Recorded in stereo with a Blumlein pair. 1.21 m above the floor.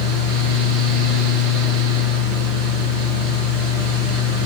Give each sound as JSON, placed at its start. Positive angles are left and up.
{"t": 0.0, "sound": "a fan", "azimuth_deg": -35, "distance_m": 1.8}